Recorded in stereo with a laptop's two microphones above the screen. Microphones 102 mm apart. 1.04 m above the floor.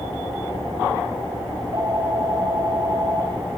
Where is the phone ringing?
45° right (ahead or behind), 3 m.